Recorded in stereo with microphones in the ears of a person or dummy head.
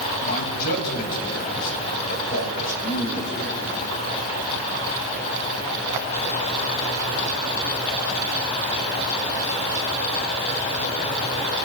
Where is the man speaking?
50° left (ahead or behind), 2.5 m.